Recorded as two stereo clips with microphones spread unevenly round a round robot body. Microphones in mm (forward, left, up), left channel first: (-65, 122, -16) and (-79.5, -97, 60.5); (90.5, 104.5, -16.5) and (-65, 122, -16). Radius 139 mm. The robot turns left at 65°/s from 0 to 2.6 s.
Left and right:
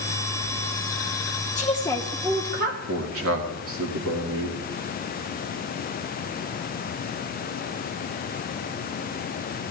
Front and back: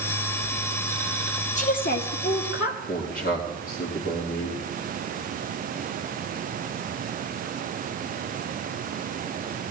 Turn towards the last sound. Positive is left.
turn(degrees=-50)